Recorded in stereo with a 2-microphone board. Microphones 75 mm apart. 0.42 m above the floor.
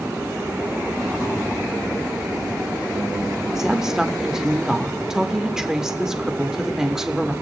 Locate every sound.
3.5 s a woman speaking: 10° right (ahead or behind), 0.7 m